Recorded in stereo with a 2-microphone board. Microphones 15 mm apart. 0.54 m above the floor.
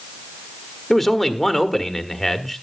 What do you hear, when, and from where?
0.9 s a man speaking: 15° left (ahead or behind), 1.2 m